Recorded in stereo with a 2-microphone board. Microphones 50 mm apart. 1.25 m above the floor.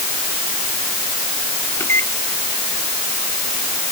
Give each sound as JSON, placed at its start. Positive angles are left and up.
{"t": 1.8, "sound": "a microwave", "side_deg": 55}